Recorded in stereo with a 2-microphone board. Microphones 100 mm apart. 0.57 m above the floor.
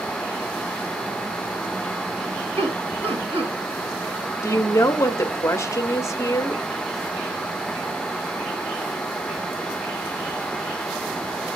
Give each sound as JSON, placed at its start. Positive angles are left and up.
{"t": 2.6, "sound": "laughter", "side_deg": -70, "distance_m": 4.0}
{"t": 4.4, "sound": "a woman speaking", "side_deg": 30, "distance_m": 1.0}